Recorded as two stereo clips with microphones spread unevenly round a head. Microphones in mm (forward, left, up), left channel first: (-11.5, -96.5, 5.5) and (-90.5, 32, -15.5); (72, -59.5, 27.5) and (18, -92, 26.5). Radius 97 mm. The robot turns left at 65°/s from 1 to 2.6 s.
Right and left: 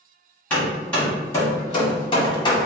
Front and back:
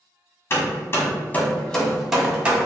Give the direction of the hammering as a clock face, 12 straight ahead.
12 o'clock.